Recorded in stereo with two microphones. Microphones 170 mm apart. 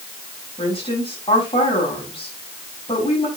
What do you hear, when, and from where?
0.6 s a woman speaking: 30° left (ahead or behind), 5 m